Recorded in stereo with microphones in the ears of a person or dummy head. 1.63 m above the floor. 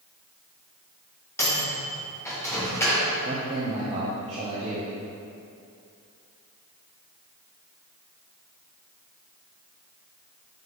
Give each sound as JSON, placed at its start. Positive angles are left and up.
{"t": 1.4, "sound": "a microwave", "side_deg": 15, "distance_m": 1.4}
{"t": 3.2, "sound": "a man speaking", "side_deg": -30, "distance_m": 1.0}